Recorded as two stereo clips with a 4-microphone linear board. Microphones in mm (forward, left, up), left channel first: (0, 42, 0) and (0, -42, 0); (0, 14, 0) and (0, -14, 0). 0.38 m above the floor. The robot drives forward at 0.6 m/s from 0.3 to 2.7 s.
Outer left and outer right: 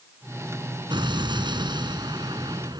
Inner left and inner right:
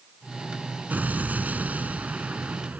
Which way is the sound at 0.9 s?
75° right (ahead or behind).